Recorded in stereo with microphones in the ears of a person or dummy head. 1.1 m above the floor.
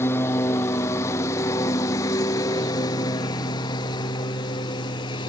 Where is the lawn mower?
10° left (ahead or behind); by 5.3 s 25° left (ahead or behind).